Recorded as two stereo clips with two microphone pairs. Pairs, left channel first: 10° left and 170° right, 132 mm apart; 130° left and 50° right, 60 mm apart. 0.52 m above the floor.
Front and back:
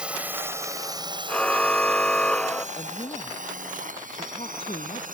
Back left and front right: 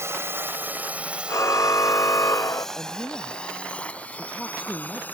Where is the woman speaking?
55° left.